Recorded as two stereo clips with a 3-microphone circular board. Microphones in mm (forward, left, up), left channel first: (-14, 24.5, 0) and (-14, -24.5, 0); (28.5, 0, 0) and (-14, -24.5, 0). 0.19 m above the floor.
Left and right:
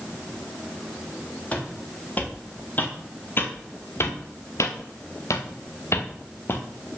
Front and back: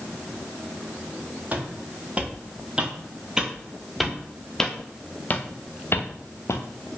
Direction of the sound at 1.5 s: 150° left.